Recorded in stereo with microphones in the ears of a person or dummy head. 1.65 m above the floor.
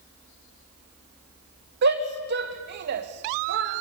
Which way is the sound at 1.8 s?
60° right (ahead or behind).